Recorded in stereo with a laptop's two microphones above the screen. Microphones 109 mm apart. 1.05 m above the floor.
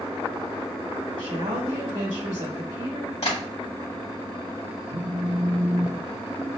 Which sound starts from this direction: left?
Tapping, at 3.2 s.